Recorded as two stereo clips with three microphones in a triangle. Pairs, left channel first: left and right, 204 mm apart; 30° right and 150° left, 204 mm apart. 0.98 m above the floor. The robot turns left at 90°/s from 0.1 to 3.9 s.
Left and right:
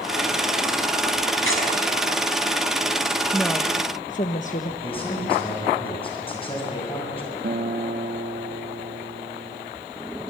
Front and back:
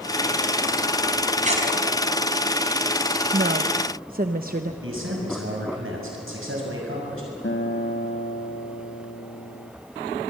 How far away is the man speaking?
About 6 m.